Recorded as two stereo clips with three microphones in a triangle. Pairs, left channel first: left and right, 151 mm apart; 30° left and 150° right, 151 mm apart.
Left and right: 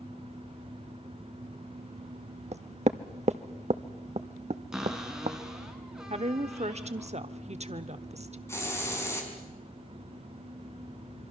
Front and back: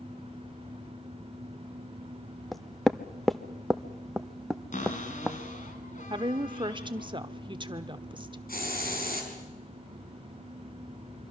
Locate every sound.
2.5 s knocking: 60° right, 0.7 m
4.7 s a cupboard door: 5° right, 2.5 m
6.1 s a woman speaking: 105° right, 1.0 m
8.5 s a hiss: 20° left, 4 m